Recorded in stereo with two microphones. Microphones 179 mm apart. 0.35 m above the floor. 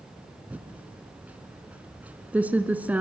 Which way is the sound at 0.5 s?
10° right (ahead or behind).